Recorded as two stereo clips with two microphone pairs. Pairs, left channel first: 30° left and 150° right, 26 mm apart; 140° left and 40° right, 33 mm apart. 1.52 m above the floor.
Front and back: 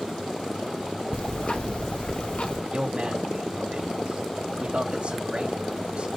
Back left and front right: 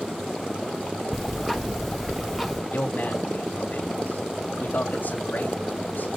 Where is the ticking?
50° left, 1.2 m.